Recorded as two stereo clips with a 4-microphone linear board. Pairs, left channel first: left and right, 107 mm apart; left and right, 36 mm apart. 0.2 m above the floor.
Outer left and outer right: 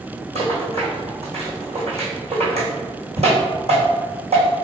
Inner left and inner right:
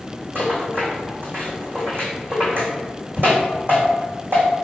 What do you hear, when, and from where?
0.3 s a rattle: 75° right (ahead or behind), 1.6 m